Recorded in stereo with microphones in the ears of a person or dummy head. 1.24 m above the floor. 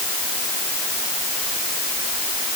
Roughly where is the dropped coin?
I don't hear a dropped coin.